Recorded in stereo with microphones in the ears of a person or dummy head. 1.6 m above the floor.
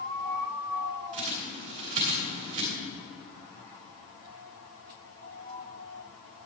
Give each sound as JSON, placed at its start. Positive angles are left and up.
{"t": 1.1, "sound": "a bird", "side_deg": -40, "distance_m": 3.0}